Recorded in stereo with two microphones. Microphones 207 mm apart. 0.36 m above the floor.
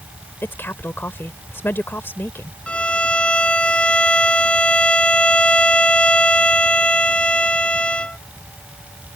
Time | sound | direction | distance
0.4 | a woman speaking | 10° left (ahead or behind) | ?
2.7 | a violin | 5° left (ahead or behind) | ?